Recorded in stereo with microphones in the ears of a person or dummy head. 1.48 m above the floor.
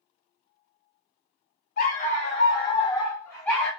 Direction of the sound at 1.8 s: 50° left (ahead or behind).